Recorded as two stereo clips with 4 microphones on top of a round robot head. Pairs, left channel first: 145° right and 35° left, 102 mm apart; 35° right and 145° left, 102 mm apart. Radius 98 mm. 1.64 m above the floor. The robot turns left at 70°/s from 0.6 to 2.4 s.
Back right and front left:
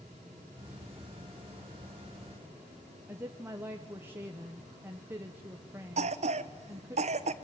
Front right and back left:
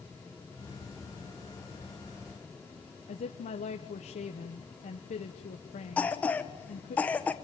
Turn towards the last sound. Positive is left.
turn(degrees=40)